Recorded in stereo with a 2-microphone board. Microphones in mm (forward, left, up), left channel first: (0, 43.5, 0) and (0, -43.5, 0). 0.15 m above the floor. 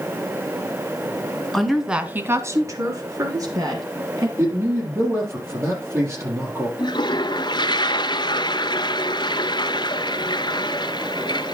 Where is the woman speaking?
5° left (ahead or behind), 1.6 m; by 4.3 s 45° right (ahead or behind), 3.5 m.